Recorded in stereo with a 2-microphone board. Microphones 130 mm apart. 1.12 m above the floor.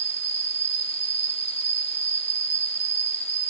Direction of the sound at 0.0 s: 50° left (ahead or behind).